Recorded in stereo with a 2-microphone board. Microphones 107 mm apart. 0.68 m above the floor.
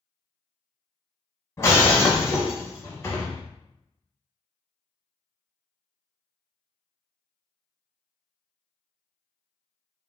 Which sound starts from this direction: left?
Breaking glass, at 1.6 s.